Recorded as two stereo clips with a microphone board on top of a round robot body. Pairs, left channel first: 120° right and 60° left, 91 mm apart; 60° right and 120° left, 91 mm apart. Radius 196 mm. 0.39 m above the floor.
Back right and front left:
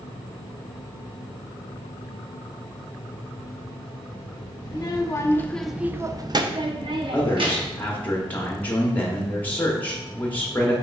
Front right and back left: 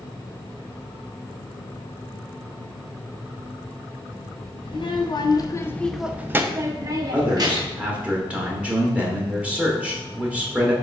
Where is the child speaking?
80° right, 0.8 m; by 7.9 s 80° left, 1.3 m.